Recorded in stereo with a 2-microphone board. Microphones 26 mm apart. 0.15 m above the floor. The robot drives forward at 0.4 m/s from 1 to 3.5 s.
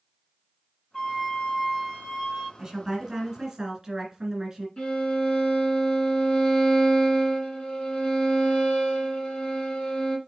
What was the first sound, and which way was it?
A flute, 20° left (ahead or behind).